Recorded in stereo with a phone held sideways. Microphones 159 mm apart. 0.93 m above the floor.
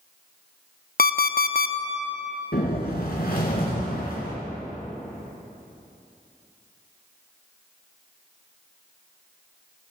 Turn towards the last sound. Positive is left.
turn(degrees=75)  # may be behind; listen again after turning